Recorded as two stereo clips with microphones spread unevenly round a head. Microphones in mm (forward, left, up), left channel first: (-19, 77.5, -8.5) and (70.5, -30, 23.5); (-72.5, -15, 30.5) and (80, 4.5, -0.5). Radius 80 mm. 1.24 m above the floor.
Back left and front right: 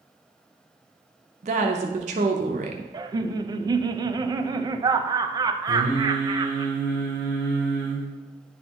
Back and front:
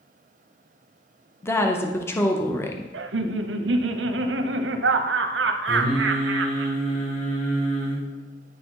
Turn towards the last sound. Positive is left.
turn(degrees=135)